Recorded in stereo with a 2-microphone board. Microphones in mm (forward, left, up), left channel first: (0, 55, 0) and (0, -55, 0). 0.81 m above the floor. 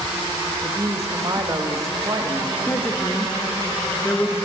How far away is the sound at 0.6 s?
About 1.0 m.